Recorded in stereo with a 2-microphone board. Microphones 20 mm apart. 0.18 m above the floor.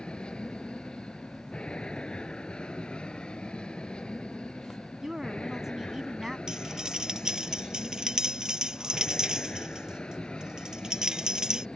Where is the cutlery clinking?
40° right (ahead or behind).